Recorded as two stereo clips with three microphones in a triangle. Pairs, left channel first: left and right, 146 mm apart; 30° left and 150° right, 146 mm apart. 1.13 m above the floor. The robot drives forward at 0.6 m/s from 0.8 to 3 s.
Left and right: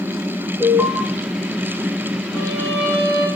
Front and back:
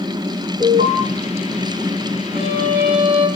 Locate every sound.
0.6 s an alarm: 165° right, 9.5 m
2.3 s a violin: 160° left, 7.5 m